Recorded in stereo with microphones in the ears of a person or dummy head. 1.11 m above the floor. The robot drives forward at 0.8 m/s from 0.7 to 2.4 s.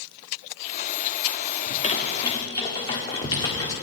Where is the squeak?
40° left (ahead or behind), 1.0 m; by 3.7 s 25° left (ahead or behind), 1.4 m.